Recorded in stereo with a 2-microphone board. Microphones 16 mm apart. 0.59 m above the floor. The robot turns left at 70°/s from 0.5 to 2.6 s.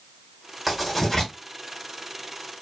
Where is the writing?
5° right (ahead or behind), 1.6 m; by 1.3 s 40° left (ahead or behind), 1.6 m.